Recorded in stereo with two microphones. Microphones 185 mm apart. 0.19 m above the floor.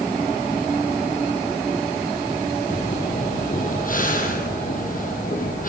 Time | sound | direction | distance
2.7 | breathing | 50° left (ahead or behind) | 4 m